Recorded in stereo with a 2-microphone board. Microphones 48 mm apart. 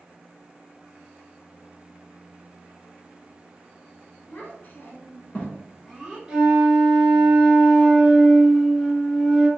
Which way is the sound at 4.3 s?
40° left (ahead or behind).